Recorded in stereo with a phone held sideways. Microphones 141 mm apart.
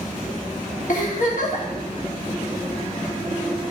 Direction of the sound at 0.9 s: 65° left (ahead or behind).